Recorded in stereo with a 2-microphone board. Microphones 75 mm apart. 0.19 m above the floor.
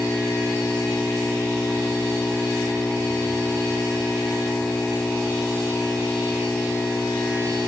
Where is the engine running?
15° left (ahead or behind).